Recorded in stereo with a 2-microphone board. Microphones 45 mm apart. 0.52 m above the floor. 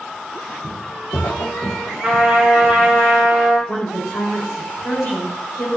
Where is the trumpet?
20° right (ahead or behind), 1.3 m.